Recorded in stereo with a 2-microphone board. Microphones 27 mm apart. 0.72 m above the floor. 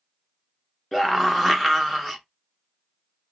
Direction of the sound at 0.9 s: 5° left (ahead or behind).